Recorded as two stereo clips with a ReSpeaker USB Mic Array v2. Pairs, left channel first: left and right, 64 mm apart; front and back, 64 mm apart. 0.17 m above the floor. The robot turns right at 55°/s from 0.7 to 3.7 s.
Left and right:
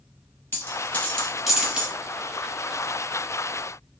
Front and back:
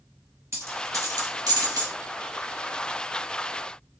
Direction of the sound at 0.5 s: 140° left.